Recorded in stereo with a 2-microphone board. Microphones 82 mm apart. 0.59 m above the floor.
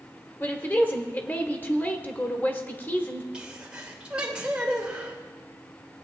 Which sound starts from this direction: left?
A woman speaking, at 0.4 s.